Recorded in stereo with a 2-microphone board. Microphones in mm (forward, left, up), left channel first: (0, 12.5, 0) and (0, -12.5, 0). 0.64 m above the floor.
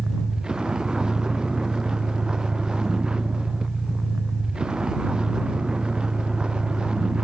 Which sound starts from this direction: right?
A vehicle, at 0.0 s.